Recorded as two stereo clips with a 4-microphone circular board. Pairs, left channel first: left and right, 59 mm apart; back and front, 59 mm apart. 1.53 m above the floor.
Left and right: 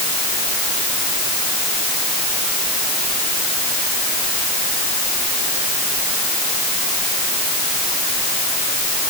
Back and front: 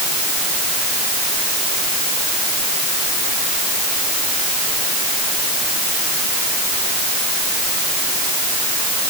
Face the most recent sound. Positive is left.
No sound to turn to.